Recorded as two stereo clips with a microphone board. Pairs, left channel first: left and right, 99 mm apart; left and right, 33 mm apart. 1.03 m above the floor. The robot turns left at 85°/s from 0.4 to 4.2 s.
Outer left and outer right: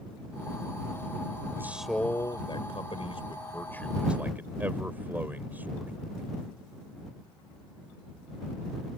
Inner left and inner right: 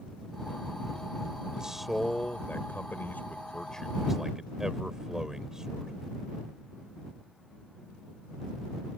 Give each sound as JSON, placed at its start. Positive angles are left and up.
{"t": 1.6, "sound": "a man speaking", "azimuth_deg": -155}